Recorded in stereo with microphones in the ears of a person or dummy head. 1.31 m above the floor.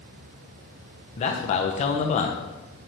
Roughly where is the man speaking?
Left.